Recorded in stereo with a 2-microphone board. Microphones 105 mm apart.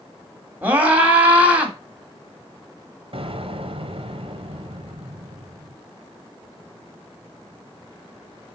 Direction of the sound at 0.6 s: 15° right (ahead or behind).